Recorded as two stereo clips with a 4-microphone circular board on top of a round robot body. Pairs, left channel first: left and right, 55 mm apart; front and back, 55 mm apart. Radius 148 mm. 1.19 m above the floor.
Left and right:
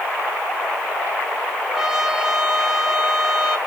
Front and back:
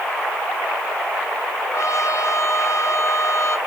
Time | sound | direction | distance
1.7 | a trumpet | 10° right | 1.7 m